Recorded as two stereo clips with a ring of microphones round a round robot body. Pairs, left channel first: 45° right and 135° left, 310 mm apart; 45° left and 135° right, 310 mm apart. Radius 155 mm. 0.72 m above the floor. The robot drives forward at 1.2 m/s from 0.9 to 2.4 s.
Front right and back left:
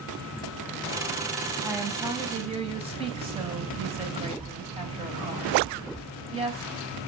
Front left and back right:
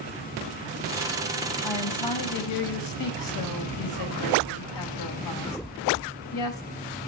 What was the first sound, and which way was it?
A woman speaking, 50° left.